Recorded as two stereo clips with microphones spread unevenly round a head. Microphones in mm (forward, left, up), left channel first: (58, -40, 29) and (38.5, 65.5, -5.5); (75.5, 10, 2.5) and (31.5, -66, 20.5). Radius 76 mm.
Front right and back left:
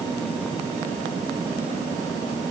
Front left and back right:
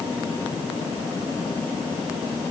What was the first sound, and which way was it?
Only background noise.